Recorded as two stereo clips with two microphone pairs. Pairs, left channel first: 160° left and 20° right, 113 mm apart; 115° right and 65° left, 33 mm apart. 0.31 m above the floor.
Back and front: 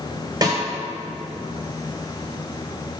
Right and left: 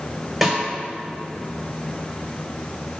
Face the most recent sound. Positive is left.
turn(degrees=-20)